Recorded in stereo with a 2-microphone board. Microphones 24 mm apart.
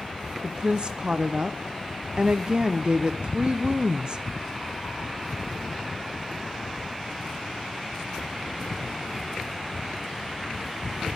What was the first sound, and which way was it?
A woman speaking, 40° right (ahead or behind).